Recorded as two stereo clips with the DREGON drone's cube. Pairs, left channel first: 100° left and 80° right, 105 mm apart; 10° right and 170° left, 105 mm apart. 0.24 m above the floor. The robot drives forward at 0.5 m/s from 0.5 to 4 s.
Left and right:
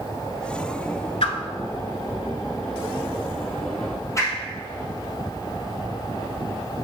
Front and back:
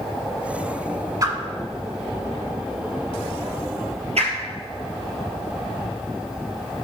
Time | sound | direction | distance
1.2 | a whoosh | 115° left | 0.7 m